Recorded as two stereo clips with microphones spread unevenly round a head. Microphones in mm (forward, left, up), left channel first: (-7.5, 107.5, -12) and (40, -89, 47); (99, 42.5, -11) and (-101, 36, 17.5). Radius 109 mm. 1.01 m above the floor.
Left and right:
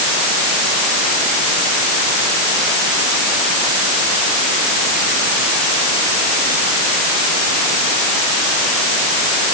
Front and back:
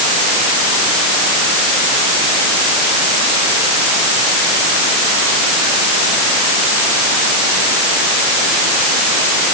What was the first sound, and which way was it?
Only background noise.